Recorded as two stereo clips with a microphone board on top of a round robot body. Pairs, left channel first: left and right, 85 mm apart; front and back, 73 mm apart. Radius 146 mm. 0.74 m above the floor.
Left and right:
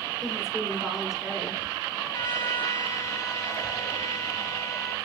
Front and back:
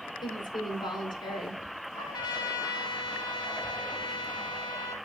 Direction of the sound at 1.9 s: 30° left.